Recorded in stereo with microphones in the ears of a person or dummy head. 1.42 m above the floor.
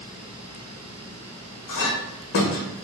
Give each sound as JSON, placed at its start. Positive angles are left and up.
{"t": 1.7, "sound": "a clink", "side_deg": 65, "distance_m": 1.1}